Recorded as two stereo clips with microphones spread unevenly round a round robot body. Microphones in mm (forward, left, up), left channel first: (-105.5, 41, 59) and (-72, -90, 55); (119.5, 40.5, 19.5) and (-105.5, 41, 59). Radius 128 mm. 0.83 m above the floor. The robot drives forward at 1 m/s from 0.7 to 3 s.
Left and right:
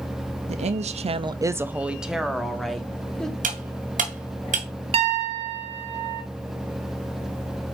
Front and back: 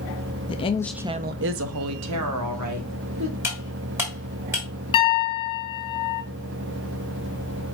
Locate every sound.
0.5 s a woman speaking: 55° right, 0.6 m; by 3.3 s 170° right, 2 m
3.4 s cutlery clinking: 100° right, 2.0 m
4.9 s a piano: 55° right, 1.1 m